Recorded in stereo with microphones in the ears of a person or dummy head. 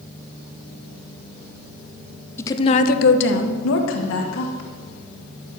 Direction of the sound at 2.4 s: 15° left (ahead or behind).